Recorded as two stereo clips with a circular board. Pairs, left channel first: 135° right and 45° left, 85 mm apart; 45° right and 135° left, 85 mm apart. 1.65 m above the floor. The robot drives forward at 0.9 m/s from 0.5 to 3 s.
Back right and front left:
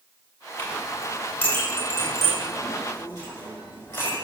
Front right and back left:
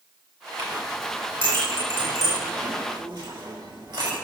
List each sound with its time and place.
0.6 s a clink: 155° left, 4 m; by 4.1 s 165° left, 6 m